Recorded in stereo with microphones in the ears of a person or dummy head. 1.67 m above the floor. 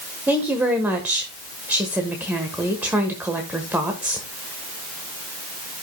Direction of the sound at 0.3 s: 5° right (ahead or behind).